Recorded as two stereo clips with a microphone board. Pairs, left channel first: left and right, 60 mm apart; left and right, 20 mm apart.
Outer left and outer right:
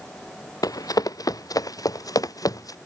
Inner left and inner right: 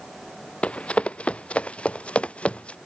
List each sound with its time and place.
0.6 s running footsteps: 80° left; by 2.8 s 70° left (ahead or behind)